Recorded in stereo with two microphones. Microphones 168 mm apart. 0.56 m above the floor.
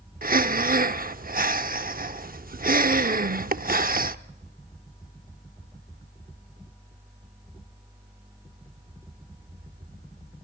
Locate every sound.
0.2 s breathing: 55° right (ahead or behind), 0.7 m